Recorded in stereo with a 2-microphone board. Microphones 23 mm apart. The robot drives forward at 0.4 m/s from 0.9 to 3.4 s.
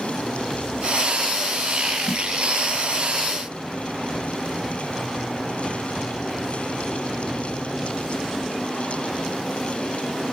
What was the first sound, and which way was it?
A snare drum, 20° left (ahead or behind).